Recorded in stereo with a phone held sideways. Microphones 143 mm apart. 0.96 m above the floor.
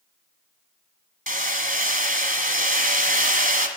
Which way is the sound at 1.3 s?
65° right (ahead or behind).